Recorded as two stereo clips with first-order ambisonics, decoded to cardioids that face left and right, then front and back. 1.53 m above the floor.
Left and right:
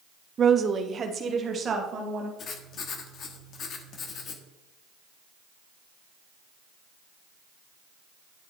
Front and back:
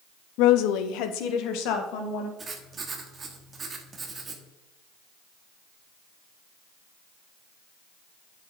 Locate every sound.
0.4 s a woman speaking: 25° right, 0.6 m
2.4 s writing: 120° left, 1.1 m